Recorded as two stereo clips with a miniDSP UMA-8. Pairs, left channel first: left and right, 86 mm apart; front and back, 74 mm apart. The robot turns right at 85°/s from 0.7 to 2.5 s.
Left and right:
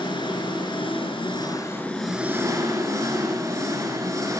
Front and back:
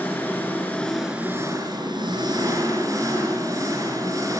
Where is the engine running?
65° left, 6.5 m; by 4.4 s 145° right, 6.5 m.